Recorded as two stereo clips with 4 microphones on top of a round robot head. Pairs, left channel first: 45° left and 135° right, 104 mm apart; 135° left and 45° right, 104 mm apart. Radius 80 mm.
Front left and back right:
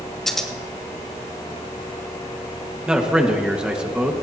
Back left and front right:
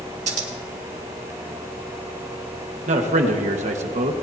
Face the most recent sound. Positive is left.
turn(degrees=-55)